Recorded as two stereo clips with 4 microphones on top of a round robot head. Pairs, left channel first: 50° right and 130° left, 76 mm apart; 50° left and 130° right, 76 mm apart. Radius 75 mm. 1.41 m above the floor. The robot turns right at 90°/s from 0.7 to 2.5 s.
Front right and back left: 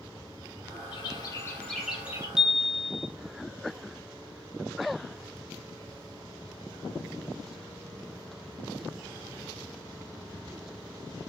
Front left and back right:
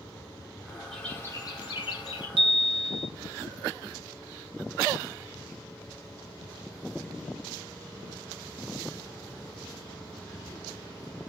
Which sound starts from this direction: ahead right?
A bird, at 0.9 s.